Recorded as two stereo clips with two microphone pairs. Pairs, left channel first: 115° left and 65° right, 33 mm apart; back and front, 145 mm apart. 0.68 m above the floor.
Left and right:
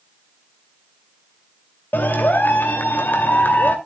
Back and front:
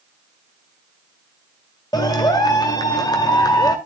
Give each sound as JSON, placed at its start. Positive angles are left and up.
{"t": 1.9, "sound": "a clap", "azimuth_deg": 120, "distance_m": 2.0}